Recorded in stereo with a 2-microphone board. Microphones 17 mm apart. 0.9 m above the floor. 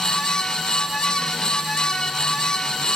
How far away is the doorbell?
No doorbell in this recording.